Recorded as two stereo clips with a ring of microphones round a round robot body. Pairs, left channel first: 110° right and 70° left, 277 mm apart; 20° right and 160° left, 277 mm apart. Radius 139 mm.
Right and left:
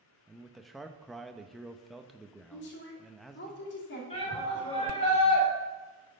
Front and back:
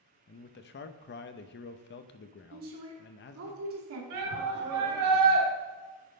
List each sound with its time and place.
0.3 s a man speaking: 25° right, 0.6 m
2.5 s a woman speaking: 165° right, 2.5 m
4.1 s a shout: straight behind, 3.5 m